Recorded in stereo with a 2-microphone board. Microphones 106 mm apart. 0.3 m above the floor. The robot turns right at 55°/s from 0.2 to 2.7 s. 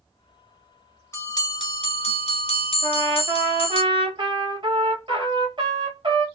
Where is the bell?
25° left, 0.9 m; by 3.8 s 110° left, 0.9 m.